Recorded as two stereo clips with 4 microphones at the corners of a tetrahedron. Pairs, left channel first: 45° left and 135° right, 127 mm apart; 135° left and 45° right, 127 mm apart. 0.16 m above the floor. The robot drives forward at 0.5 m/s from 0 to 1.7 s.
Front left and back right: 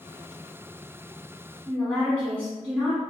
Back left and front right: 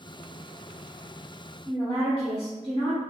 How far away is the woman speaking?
About 1.5 m.